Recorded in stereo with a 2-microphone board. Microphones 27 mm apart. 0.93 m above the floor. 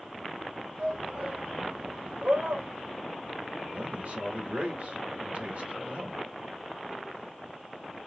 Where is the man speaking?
80° right, 3 m.